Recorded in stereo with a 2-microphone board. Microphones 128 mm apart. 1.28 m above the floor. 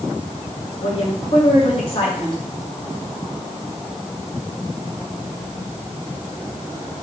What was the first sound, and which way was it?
A woman speaking, 45° left (ahead or behind).